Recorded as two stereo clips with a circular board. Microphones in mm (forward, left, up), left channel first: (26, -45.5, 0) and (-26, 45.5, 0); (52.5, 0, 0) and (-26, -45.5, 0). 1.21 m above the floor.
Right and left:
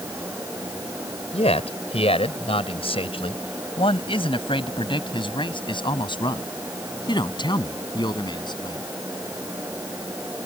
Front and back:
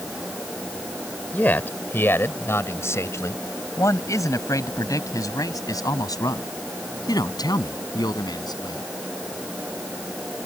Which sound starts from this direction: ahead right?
A man speaking, at 1.3 s.